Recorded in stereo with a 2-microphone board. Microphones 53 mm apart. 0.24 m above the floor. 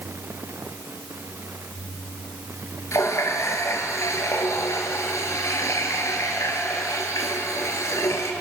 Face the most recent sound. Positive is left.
turn(degrees=70)  # may be behind; listen again after turning